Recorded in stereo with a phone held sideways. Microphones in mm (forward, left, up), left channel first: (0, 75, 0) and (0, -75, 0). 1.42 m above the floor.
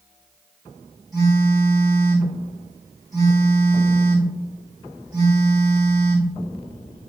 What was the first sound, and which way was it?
A phone buzzing, 20° right (ahead or behind).